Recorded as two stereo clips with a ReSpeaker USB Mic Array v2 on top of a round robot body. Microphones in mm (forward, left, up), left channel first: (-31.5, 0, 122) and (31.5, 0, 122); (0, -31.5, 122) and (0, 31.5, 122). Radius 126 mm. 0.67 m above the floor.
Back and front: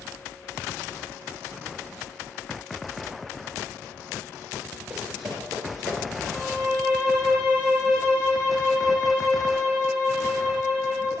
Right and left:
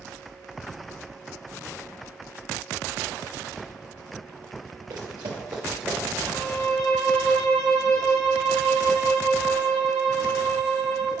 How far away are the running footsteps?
About 1.1 m.